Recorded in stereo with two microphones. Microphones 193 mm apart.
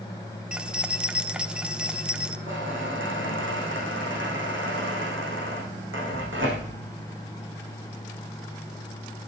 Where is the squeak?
80° right, 5.5 m.